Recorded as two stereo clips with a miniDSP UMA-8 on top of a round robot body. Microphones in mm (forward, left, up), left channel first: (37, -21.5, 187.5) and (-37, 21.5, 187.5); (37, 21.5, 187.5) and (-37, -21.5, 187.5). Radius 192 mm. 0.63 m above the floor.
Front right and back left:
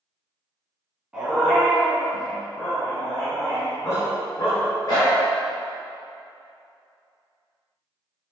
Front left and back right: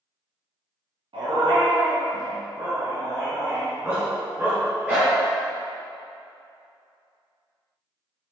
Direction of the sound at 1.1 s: 130° right.